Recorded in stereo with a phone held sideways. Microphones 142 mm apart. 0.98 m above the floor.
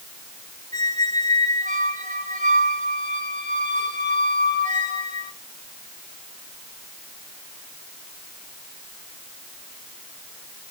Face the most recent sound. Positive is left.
turn(degrees=-55)  # may be behind; listen again after turning